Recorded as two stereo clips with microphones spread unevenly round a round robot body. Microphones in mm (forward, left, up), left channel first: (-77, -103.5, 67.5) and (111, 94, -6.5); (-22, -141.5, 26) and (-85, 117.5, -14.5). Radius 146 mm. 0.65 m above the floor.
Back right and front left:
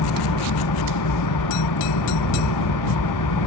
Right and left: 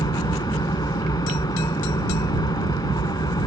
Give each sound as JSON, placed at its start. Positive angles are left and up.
{"t": 0.0, "sound": "an engine running", "azimuth_deg": -150}